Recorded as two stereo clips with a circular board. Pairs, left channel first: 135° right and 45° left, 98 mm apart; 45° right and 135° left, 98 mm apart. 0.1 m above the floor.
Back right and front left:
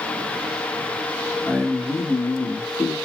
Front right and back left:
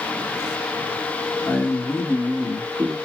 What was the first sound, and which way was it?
A man speaking, 60° right.